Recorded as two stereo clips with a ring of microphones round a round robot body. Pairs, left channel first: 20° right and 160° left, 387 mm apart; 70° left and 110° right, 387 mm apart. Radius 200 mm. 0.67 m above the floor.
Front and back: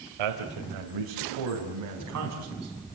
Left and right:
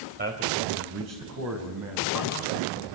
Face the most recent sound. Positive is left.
turn(degrees=-150)